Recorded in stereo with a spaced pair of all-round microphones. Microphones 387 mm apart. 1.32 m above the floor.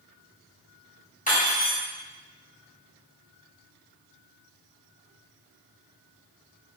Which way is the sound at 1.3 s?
20° left (ahead or behind).